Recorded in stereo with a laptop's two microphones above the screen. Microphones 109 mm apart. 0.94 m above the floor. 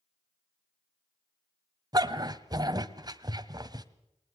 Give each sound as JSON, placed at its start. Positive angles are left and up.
{"t": 1.9, "sound": "a dog barking", "side_deg": -35, "distance_m": 1.3}